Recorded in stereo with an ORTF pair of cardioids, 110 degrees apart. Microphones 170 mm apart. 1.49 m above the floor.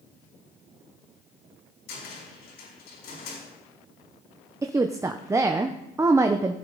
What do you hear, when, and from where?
1.9 s a cupboard door: 65° left, 4.5 m
4.6 s a woman speaking: 15° right, 0.7 m